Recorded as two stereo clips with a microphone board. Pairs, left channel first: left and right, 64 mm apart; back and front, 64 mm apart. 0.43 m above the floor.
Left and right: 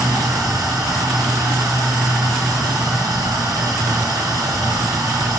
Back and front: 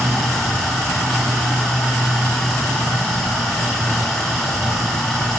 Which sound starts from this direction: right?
Running water, at 0.0 s.